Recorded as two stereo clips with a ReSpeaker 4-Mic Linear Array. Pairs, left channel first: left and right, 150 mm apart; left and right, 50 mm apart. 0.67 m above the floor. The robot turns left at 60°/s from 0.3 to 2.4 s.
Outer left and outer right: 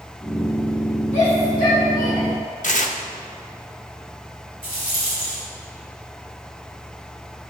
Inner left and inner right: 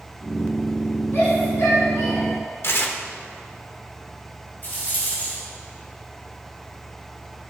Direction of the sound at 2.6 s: 60° left (ahead or behind).